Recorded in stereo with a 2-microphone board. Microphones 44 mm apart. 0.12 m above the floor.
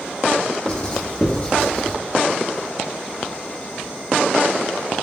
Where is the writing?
25° left (ahead or behind), 0.8 m.